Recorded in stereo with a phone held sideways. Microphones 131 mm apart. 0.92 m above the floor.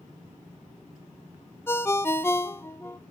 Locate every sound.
1.7 s a ringtone: 15° left (ahead or behind), 1.0 m